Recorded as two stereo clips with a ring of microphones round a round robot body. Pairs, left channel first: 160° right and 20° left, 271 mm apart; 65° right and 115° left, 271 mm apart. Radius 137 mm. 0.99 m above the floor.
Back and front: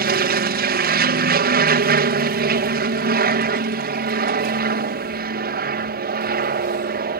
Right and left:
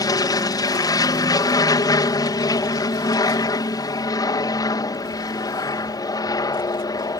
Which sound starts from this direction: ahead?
An aircraft, at 0.0 s.